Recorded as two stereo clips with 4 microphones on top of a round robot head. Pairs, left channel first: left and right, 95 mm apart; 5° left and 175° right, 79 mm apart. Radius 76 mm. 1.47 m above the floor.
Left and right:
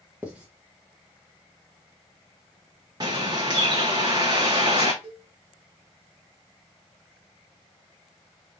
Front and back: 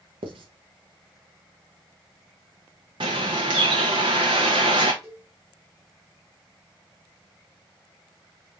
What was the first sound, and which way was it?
Writing, 170° right.